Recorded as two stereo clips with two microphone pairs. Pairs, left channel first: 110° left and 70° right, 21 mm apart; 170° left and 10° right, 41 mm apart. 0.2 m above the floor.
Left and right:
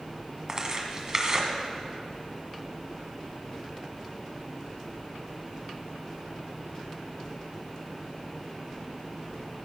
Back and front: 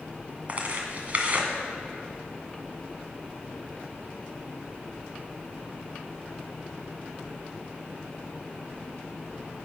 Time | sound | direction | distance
0.5 | tearing paper | 25° right | 1.5 m